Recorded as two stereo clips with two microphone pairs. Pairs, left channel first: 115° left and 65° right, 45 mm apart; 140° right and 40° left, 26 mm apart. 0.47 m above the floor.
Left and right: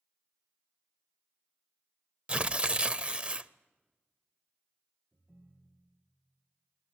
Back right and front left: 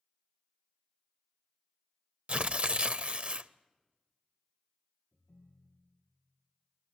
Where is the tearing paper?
5° right, 0.5 m.